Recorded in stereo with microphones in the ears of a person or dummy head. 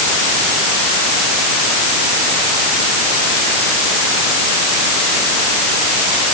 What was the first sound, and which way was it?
Only background noise.